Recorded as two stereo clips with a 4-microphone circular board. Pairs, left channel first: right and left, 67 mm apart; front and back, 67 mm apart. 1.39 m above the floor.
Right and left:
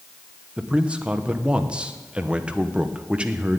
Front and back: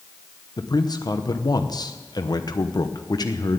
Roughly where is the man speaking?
Ahead.